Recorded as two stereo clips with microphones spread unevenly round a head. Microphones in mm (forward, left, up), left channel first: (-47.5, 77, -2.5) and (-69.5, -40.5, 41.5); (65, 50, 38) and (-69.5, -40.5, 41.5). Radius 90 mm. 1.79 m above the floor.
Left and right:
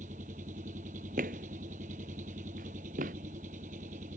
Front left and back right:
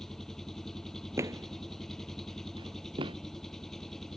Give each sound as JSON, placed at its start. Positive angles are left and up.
{"t": 0.0, "sound": "an engine running", "azimuth_deg": -55}
{"t": 1.2, "sound": "footsteps", "azimuth_deg": -70}